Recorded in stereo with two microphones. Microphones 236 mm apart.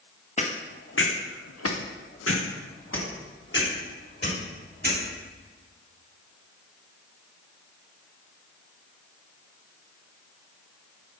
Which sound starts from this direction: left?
Footsteps, at 0.4 s.